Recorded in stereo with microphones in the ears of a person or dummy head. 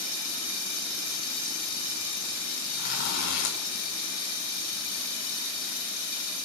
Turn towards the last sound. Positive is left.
turn(degrees=75)  # may be behind; listen again after turning